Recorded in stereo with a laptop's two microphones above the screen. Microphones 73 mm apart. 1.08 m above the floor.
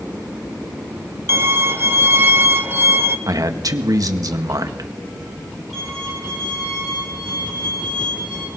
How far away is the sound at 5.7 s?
About 8.5 m.